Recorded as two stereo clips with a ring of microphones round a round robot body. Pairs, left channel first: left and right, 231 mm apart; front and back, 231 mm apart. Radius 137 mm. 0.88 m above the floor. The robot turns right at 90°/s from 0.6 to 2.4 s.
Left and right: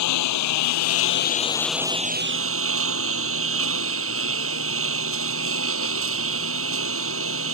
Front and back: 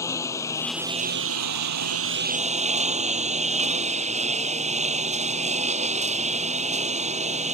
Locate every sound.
0.0 s a lawn mower: 80° left; by 7.5 s 120° right